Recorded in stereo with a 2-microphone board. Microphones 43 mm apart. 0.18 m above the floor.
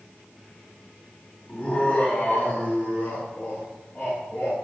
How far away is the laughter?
About 1.6 m.